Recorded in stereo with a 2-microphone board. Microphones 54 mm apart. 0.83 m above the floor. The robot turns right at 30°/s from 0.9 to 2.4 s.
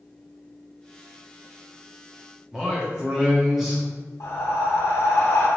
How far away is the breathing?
About 1.0 m.